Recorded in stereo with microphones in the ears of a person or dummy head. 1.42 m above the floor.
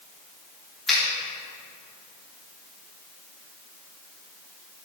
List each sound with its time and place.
0.9 s a finger snap: centre (ahead or behind), 3 m